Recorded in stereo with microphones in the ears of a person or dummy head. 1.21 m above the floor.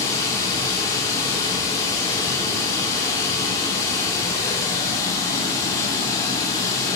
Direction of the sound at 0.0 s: 15° left (ahead or behind).